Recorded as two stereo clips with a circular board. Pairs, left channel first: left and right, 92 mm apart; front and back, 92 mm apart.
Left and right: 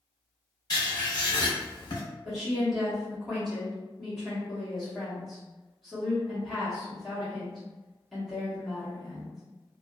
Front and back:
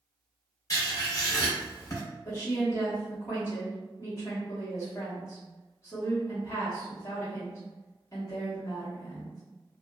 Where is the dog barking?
No dog barking in this recording.